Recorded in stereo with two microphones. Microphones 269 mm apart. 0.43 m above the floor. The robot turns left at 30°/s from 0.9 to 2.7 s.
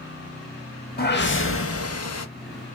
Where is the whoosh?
145° left, 0.6 m; by 2.3 s 105° left, 0.6 m.